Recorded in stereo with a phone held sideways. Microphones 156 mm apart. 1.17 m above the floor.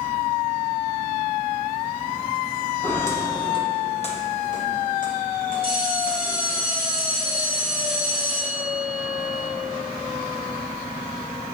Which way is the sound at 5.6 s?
75° left (ahead or behind).